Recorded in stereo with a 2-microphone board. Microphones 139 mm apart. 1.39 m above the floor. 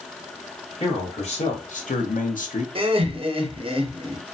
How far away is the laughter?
About 0.7 m.